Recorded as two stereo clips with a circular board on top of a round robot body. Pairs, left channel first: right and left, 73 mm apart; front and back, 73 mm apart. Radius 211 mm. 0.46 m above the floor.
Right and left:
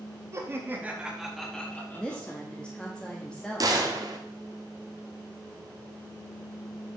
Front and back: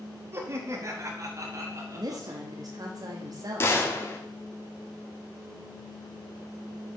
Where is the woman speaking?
165° right, 1.1 m.